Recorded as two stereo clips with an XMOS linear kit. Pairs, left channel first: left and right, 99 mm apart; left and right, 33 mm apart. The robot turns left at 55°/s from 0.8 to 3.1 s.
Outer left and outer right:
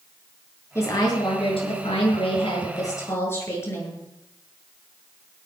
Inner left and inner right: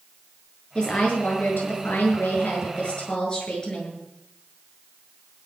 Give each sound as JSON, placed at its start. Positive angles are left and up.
{"t": 0.8, "sound": "a woman speaking", "azimuth_deg": 150, "distance_m": 7.5}